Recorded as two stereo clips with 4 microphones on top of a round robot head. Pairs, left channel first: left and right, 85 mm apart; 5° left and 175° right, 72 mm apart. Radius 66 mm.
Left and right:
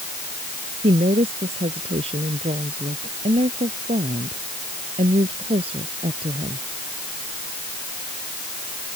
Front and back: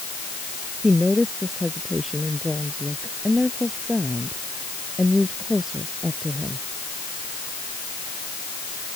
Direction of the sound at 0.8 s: 85° right.